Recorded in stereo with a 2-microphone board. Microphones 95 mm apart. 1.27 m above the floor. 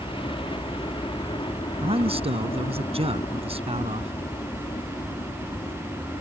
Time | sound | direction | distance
0.0 | a helicopter | 65° left (ahead or behind) | ?
1.8 | a man speaking | 90° right | ?